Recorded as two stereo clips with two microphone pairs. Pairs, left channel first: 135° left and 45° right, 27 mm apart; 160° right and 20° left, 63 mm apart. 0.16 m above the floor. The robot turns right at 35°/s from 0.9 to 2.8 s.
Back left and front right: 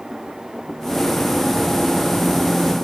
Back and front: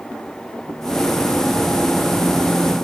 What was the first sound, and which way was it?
Only background noise.